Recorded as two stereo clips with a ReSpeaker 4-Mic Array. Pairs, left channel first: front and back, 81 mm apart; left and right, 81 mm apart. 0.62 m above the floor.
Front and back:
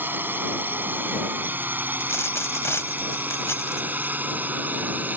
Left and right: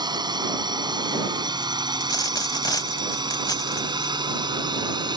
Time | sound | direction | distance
0.0 | a drone | 115° right | ?
2.0 | a dropped coin | 55° left | ?